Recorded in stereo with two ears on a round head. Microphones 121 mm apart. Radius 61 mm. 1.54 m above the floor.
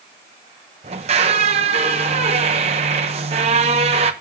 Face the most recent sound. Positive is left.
turn(degrees=-50)  # may be behind; listen again after turning